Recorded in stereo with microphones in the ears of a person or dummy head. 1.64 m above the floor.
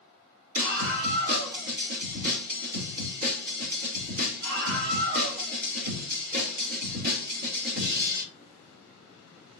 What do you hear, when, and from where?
0.6 s a scream: 50° right (ahead or behind), 4.5 m